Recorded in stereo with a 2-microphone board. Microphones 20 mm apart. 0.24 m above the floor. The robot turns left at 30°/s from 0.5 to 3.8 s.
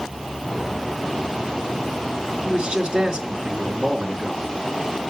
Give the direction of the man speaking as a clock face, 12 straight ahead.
3 o'clock.